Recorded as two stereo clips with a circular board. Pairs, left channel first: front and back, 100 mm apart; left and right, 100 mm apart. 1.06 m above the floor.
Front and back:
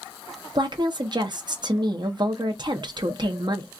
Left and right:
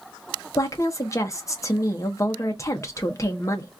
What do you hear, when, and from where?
0.6 s a woman speaking: 145° left, 1.0 m